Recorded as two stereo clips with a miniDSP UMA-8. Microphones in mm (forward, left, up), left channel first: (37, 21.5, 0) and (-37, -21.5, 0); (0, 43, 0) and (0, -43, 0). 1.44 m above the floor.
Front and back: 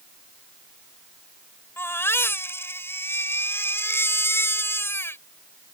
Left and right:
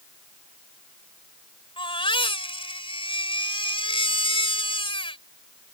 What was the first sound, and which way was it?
A baby crying, 95° left.